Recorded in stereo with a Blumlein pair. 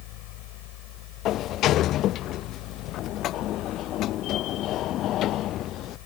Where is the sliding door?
35° left.